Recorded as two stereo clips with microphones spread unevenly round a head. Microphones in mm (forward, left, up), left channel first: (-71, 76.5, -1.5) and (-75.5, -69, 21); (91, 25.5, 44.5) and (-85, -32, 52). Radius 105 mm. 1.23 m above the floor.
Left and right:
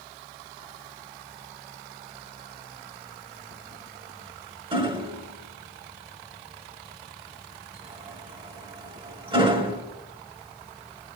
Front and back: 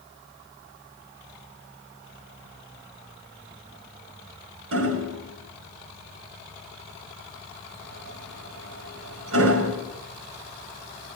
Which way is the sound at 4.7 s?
145° right.